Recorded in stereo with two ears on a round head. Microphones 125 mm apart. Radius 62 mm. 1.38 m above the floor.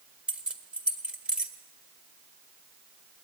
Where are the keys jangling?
10° right (ahead or behind), 1.6 m.